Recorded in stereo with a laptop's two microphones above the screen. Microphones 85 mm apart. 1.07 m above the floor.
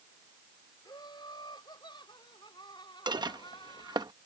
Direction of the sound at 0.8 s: 65° left (ahead or behind).